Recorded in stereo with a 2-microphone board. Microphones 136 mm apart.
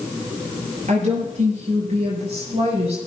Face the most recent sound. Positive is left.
turn(degrees=-50)  # may be behind; listen again after turning